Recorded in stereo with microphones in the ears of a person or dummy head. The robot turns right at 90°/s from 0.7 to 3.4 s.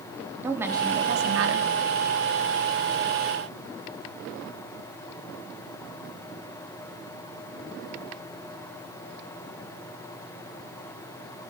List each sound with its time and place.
0.4 s a woman speaking: 170° right, 3 m; by 1.7 s 80° right, 3 m